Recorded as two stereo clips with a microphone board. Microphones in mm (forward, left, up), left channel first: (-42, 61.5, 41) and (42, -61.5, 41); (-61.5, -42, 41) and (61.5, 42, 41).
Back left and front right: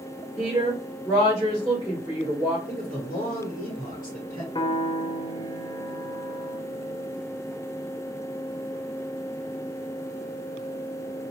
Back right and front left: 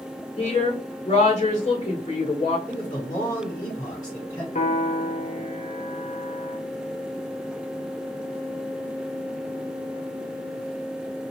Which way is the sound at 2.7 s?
150° left.